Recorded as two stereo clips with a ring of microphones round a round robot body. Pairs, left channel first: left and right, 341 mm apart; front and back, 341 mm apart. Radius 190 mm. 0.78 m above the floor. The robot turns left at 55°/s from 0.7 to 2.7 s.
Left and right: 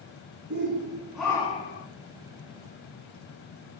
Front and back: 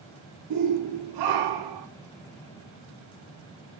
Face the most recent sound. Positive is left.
turn(degrees=100)